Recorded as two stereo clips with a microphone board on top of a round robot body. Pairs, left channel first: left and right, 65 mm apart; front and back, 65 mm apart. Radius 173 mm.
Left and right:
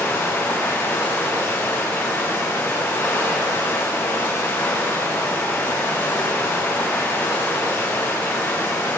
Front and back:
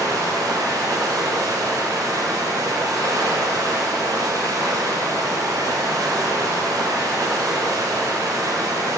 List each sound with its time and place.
0.0 s running water: 150° left, 3.5 m